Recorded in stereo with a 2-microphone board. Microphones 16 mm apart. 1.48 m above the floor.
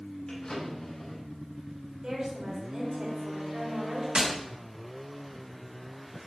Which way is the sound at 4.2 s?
65° right (ahead or behind).